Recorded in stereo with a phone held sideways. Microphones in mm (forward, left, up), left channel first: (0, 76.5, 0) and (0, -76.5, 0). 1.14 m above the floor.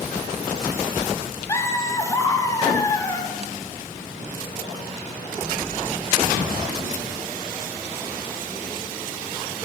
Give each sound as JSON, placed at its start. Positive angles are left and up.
{"t": 1.5, "sound": "laughter", "side_deg": 20, "distance_m": 1.4}